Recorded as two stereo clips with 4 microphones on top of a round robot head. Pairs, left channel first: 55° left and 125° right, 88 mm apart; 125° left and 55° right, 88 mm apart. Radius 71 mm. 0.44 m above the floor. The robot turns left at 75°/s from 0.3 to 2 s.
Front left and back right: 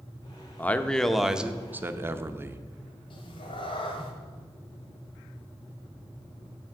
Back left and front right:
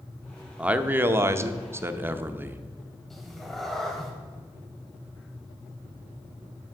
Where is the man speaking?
10° left, 0.8 m; by 2.6 s 95° right, 0.8 m.